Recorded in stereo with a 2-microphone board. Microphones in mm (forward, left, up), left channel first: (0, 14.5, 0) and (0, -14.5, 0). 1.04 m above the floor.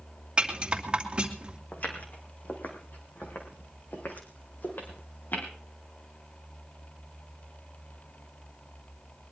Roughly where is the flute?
I don't hear a flute.